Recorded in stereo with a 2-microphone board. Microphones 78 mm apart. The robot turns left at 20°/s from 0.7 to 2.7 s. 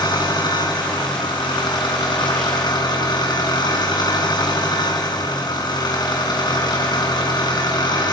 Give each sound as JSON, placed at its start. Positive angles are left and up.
{"t": 0.0, "sound": "an engine running", "azimuth_deg": 110, "distance_m": 5.0}